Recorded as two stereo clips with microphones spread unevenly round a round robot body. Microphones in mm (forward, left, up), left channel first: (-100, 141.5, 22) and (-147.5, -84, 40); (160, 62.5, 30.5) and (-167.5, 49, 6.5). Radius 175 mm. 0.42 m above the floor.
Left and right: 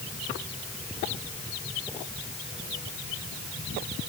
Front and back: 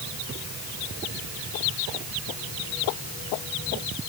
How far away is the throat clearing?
No throat clearing in this recording.